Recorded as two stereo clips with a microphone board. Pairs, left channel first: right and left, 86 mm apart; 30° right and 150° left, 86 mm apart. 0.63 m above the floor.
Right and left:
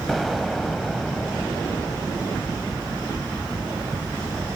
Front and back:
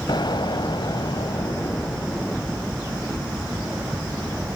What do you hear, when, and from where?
0.1 s an explosion: straight ahead, 1.0 m